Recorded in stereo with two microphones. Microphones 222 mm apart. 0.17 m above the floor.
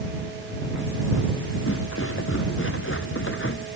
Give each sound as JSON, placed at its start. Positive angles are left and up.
{"t": 1.7, "sound": "footsteps", "side_deg": 65}